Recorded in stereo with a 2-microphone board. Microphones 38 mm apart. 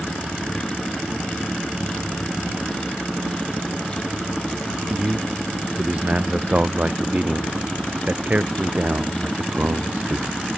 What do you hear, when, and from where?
4.9 s a man speaking: 35° right (ahead or behind); by 10.4 s 50° right (ahead or behind)